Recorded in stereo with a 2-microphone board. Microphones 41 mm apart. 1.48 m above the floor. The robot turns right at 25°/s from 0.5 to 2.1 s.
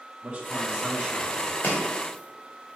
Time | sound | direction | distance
0.2 | a man speaking | 50° right (ahead or behind) | 2 m
1.6 | chopping | 50° left (ahead or behind) | 2 m